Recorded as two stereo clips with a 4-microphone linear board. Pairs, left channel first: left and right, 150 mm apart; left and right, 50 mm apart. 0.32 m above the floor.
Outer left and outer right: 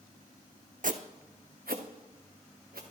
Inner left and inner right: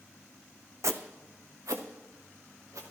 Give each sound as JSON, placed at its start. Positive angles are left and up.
{"t": 0.8, "sound": "footsteps", "side_deg": -65, "distance_m": 0.8}